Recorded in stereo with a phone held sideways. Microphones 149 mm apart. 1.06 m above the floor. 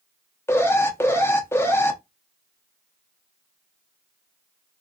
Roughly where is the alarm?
Centre.